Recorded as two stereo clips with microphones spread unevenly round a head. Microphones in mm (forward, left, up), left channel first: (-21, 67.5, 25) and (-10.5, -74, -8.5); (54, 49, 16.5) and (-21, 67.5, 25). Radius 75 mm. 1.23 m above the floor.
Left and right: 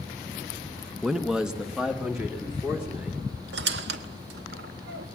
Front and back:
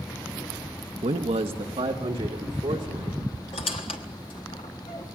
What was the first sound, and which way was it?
A man speaking, 175° right.